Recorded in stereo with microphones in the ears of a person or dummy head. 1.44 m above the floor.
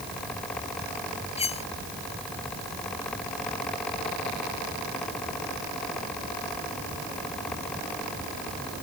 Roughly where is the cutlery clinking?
Left.